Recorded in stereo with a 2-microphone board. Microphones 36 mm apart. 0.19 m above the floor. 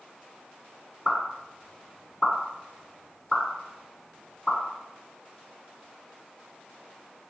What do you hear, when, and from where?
1.1 s a pop: 15° left (ahead or behind), 1.9 m